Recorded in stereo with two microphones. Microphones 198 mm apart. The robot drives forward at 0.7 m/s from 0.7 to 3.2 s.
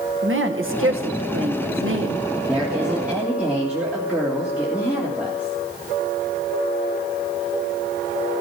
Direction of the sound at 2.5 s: 5° right (ahead or behind).